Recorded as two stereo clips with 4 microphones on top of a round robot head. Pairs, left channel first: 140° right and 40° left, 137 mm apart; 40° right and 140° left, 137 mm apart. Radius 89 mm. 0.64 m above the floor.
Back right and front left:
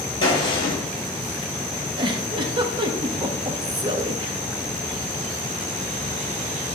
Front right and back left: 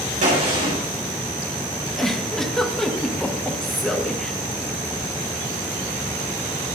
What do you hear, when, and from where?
0.2 s a gunshot: 165° left, 4 m
2.0 s a giggle: 40° left, 1.1 m